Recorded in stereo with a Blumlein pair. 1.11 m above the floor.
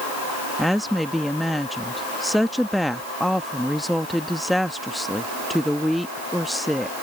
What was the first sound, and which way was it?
A woman speaking, straight ahead.